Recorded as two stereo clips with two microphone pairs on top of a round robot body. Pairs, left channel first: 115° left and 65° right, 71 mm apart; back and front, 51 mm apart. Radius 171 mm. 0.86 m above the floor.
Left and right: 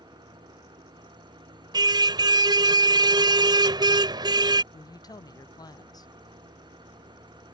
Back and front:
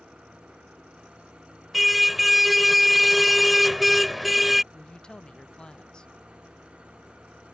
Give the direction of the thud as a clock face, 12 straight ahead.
No thud in this recording.